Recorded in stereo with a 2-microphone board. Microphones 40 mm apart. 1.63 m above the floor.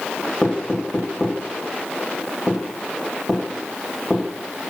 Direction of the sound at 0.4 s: 5° left (ahead or behind).